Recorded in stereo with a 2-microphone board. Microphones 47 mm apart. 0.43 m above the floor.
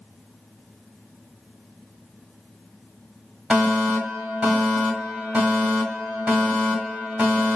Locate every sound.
3.5 s a fire alarm: 10° right (ahead or behind), 1.8 m